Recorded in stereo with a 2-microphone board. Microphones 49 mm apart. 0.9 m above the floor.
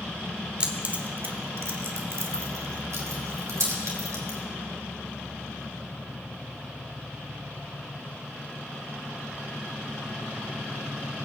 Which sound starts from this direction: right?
Keys jangling, at 0.6 s.